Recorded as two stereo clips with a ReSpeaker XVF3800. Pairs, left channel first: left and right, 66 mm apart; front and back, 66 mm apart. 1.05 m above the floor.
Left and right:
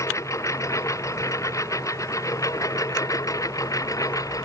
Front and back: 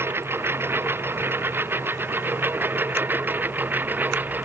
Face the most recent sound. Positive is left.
turn(degrees=120)